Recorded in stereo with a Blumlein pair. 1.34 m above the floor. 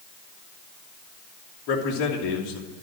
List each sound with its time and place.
1.7 s a man speaking: 35° left, 3 m